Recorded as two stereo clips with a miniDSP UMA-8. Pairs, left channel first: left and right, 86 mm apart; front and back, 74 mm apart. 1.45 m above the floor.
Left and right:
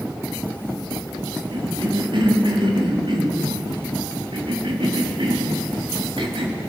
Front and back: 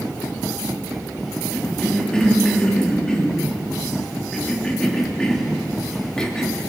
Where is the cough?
80° right, 3.5 m.